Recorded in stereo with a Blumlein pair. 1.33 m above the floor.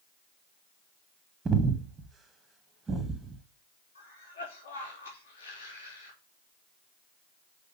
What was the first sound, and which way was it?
Breathing, 15° right.